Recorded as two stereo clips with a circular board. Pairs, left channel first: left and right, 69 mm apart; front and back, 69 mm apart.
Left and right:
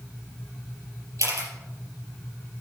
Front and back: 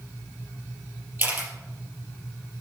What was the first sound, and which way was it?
A camera shutter, 125° right.